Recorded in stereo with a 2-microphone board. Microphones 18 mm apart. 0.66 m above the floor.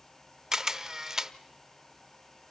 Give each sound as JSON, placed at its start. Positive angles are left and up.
{"t": 0.5, "sound": "a camera shutter", "side_deg": -30, "distance_m": 0.6}